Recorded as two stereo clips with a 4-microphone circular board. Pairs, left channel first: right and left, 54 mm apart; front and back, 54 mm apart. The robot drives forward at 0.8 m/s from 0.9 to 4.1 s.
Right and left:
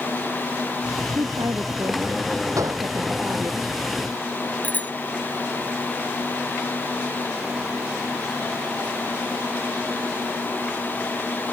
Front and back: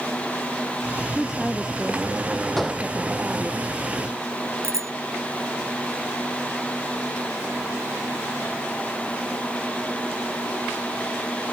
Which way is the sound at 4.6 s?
150° right.